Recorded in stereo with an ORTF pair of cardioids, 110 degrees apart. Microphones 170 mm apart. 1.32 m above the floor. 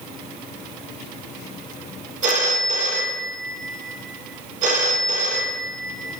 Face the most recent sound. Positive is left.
turn(degrees=-50)